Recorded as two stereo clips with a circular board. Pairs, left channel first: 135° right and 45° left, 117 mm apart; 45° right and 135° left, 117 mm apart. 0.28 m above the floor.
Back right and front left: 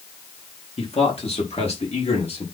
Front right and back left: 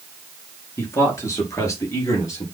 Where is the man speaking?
110° right, 3 m.